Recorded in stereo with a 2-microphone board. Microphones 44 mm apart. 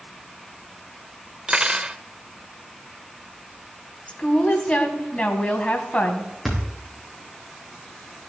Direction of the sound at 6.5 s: 5° right (ahead or behind).